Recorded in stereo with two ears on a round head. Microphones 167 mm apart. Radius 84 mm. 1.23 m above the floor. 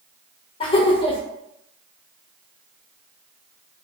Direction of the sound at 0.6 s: 25° left (ahead or behind).